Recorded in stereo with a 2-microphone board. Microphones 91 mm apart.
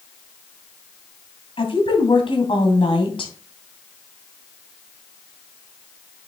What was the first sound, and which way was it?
A woman speaking, 70° left (ahead or behind).